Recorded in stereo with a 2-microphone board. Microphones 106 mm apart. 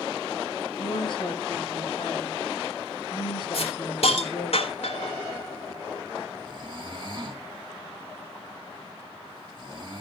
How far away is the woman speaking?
About 5.5 m.